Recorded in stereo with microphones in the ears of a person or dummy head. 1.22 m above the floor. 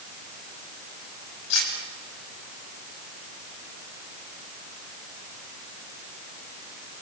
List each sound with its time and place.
1.5 s cutlery clinking: 80° left, 4.5 m